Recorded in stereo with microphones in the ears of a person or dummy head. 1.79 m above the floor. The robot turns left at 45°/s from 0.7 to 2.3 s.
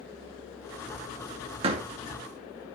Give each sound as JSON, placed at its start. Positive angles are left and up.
{"t": 1.6, "sound": "a door slam", "side_deg": -30, "distance_m": 2.5}